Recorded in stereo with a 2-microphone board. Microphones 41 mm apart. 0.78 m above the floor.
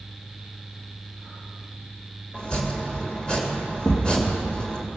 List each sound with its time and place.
2.3 s chopping: 20° left (ahead or behind), 1.8 m
3.8 s a thud: 55° left (ahead or behind), 2.5 m